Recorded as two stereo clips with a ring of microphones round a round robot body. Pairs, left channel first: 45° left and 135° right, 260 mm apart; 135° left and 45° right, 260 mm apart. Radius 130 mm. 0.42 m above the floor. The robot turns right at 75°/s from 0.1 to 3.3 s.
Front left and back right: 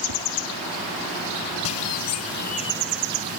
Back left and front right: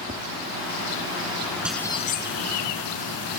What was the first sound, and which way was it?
Tapping, 115° right.